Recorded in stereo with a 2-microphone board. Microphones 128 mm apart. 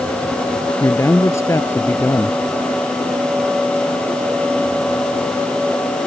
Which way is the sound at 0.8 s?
25° left (ahead or behind).